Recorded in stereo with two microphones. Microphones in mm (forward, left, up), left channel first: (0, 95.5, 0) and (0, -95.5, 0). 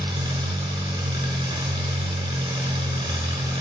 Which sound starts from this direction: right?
An engine running, at 0.0 s.